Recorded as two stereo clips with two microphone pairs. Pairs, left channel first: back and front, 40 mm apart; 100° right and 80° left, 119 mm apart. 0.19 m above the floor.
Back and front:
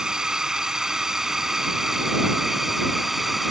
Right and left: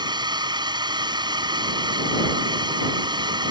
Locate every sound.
0.0 s a drone: 65° left; by 3.5 s 80° left